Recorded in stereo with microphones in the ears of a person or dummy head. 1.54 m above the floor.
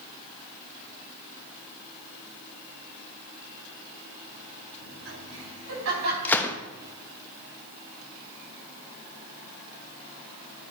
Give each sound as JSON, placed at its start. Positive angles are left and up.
{"t": 4.8, "sound": "laughter", "side_deg": -80, "distance_m": 5.0}
{"t": 6.2, "sound": "a gunshot", "side_deg": 15, "distance_m": 0.7}